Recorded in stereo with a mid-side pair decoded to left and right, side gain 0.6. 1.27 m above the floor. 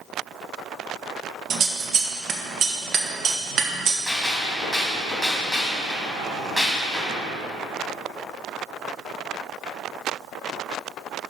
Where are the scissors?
45° right, 1.2 m.